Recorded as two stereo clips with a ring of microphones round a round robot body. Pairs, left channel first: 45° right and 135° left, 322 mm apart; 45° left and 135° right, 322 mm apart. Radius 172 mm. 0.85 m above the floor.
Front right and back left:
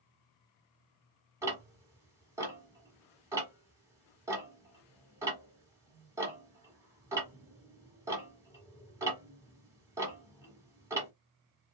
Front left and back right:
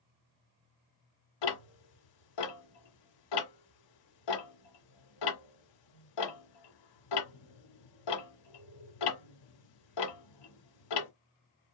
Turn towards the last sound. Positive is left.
turn(degrees=55)